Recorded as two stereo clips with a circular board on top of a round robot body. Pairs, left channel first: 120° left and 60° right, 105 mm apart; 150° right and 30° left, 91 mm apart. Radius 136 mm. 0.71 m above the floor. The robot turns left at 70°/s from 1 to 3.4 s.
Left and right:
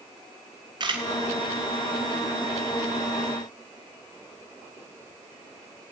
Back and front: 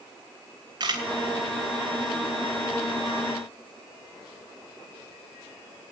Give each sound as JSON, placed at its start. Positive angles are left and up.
{"t": 0.8, "sound": "a camera shutter", "azimuth_deg": -10, "distance_m": 2.5}